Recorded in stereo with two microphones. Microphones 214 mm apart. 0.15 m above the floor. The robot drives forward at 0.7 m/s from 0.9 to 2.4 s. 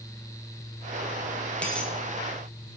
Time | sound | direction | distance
1.6 | a dropped coin | 5° left (ahead or behind) | 1.2 m